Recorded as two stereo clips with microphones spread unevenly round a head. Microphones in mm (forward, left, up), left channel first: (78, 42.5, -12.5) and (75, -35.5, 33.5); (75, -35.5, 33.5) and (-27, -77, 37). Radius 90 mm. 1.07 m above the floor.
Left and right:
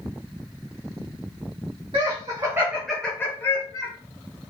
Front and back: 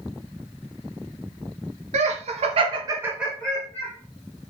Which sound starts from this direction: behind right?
Laughter, at 1.9 s.